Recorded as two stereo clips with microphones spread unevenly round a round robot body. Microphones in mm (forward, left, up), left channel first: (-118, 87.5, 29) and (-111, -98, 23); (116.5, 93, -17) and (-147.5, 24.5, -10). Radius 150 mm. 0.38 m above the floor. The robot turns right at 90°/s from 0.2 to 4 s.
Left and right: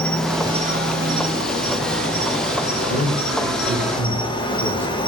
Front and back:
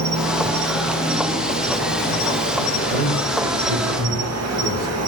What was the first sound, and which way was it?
An insect, straight behind.